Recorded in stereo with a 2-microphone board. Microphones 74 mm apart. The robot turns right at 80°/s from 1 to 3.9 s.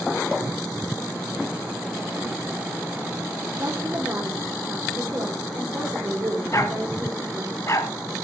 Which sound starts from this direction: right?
A woman speaking, at 3.6 s.